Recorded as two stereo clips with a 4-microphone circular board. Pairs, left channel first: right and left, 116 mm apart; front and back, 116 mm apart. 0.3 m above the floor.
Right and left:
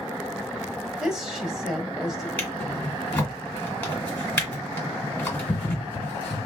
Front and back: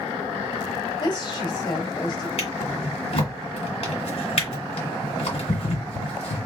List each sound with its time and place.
1.0 s a woman speaking: 5° left, 1.4 m
2.4 s a drawer: 15° right, 1.7 m